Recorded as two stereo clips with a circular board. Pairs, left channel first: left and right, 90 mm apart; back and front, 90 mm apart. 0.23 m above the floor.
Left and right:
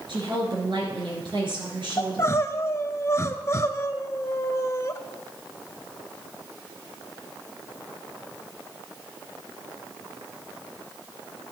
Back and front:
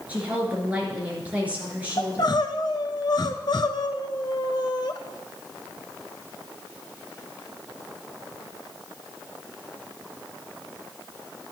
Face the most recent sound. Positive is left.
turn(degrees=145)